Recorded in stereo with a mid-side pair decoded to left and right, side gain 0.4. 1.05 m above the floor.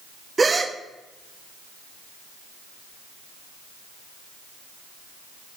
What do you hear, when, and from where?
0.4 s a gasp: 30° right, 0.7 m